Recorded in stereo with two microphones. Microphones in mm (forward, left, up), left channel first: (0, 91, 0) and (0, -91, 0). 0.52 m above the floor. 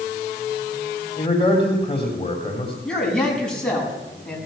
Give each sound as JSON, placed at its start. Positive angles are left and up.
{"t": 1.2, "sound": "a man speaking", "side_deg": 30, "distance_m": 3.0}
{"t": 2.9, "sound": "a man speaking", "side_deg": 5, "distance_m": 5.5}